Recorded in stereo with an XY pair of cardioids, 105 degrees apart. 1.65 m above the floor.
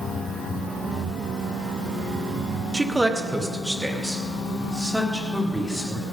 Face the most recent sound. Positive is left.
turn(degrees=0)